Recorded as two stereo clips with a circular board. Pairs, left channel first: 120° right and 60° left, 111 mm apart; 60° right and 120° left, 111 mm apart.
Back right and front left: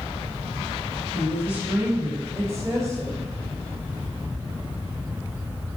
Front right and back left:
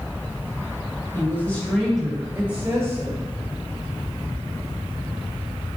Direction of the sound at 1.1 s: 15° right.